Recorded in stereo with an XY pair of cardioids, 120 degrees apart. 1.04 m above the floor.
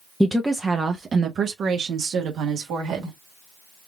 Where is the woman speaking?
Straight ahead, 0.7 m; by 3.1 s 75° right, 1.6 m.